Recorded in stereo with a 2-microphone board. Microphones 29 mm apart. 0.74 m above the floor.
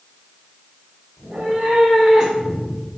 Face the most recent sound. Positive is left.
turn(degrees=10)  # may be behind; listen again after turning